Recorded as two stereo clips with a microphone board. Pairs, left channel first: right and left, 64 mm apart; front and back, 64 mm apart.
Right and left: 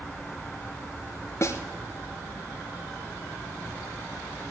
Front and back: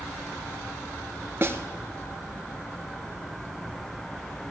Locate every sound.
1.4 s a snare drum: 130° right, 1.2 m